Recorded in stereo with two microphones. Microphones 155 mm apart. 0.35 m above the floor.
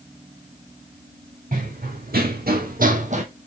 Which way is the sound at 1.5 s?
60° right (ahead or behind).